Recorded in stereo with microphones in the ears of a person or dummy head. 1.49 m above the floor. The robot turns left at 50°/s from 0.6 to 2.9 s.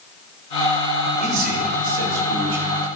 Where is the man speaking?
40° right, 3.5 m; by 2.6 s 115° right, 3.5 m.